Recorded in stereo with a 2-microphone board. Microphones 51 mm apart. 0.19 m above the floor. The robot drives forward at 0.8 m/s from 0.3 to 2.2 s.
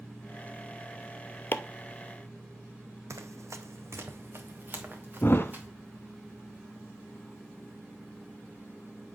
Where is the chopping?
45° left (ahead or behind), 0.7 m; by 1.6 s 50° left (ahead or behind), 0.6 m.